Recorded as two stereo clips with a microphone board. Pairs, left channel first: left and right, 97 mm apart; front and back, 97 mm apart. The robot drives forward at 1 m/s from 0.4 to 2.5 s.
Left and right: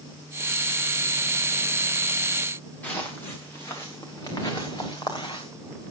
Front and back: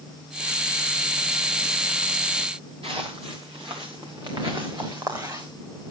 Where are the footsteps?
165° left, 5 m; by 5.5 s 125° left, 4.5 m.